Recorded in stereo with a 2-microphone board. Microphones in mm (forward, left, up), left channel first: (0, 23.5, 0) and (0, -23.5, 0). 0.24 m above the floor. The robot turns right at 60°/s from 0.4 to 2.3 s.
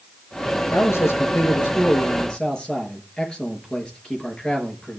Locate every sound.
0.7 s a man speaking: 60° left, 4 m; by 5.0 s 155° left, 4 m